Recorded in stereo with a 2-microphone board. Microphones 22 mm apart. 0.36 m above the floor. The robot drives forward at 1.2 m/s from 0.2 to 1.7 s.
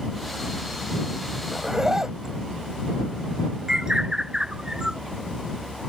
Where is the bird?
30° right (ahead or behind).